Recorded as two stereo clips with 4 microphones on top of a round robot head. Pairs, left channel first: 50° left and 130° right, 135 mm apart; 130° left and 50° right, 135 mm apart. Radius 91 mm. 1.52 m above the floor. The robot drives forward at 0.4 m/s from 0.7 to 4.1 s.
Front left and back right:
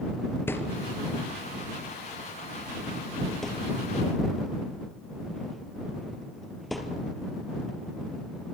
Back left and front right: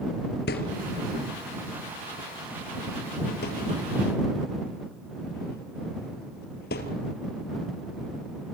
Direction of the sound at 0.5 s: 120° left.